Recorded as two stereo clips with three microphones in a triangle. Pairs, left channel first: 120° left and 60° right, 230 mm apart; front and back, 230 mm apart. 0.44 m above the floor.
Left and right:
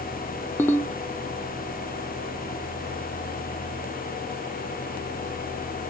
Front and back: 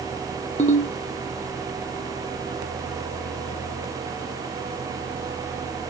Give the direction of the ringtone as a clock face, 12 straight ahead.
11 o'clock.